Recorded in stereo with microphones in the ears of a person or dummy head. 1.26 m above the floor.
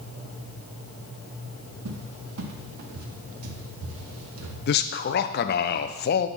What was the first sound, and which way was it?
A cupboard door, 85° right.